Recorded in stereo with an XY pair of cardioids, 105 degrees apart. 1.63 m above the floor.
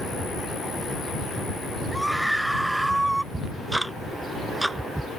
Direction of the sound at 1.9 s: Straight ahead.